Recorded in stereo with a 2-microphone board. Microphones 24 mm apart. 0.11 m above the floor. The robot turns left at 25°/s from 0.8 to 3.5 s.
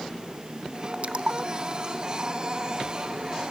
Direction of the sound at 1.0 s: 50° right (ahead or behind).